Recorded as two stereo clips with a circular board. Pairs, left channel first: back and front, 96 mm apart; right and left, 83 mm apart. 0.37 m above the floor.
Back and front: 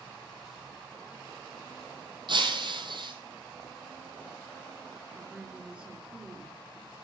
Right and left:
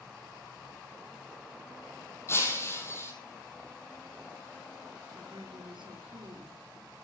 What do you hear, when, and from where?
2.3 s breaking glass: 30° right, 4 m
5.1 s a woman speaking: 80° left, 5 m